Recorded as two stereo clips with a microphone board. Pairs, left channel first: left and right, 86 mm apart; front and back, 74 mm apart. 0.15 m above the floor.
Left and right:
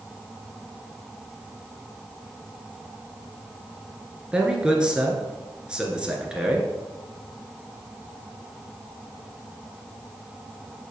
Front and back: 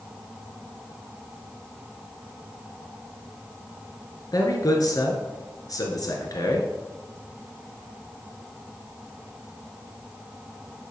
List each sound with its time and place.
4.3 s a man speaking: 15° right, 1.9 m